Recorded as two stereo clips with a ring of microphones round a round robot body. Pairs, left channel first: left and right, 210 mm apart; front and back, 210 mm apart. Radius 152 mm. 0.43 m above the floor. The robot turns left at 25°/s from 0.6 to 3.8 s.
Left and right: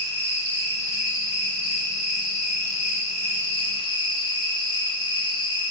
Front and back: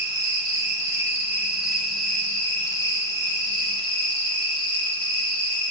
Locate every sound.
0.0 s an insect: 125° left, 2 m; by 5.7 s 45° left, 2 m